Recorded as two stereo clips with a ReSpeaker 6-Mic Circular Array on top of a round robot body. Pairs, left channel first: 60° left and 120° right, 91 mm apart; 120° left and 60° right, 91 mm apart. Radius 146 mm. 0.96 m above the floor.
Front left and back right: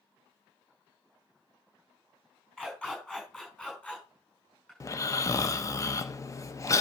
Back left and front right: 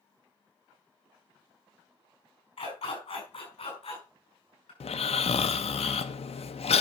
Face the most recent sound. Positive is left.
turn(degrees=120)